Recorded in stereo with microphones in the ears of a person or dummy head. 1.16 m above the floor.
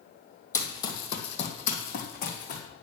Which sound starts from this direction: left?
Running footsteps, at 0.5 s.